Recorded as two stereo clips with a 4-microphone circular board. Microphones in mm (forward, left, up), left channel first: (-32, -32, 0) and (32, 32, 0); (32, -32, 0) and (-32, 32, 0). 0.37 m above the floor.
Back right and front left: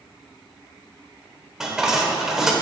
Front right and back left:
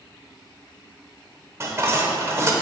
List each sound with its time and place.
1.6 s dishes clattering: 125° left, 0.8 m